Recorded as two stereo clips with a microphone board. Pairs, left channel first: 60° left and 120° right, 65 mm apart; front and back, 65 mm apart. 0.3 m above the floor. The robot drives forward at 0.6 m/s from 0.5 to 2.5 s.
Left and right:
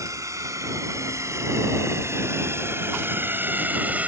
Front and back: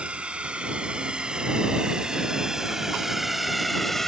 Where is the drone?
110° right; by 4.1 s 80° right.